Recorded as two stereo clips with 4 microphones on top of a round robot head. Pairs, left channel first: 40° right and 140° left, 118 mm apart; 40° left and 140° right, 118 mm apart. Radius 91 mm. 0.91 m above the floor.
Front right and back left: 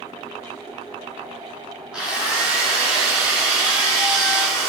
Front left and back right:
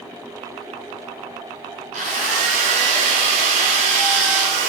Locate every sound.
1.9 s a drill: 140° right, 2 m